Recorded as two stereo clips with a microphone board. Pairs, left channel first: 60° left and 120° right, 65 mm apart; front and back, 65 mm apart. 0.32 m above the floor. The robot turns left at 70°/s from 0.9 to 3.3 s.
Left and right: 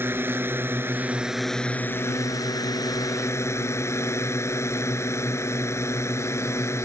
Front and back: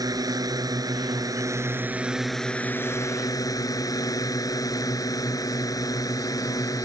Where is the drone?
175° right; by 6.8 s 20° left.